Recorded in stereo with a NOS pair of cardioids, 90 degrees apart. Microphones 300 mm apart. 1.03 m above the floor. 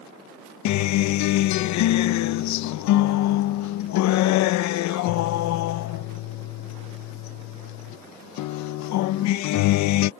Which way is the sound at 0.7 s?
70° left.